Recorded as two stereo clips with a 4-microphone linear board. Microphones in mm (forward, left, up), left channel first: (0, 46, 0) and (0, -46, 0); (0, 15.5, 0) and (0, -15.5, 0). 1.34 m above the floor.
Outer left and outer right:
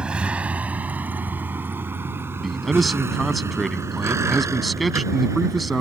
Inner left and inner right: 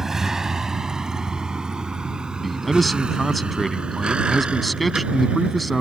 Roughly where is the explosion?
No explosion in this recording.